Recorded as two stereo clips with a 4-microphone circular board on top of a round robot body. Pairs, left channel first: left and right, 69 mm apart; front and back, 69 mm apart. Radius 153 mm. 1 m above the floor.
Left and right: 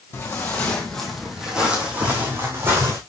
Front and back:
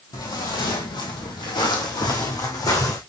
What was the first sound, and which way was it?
Footsteps, 35° left.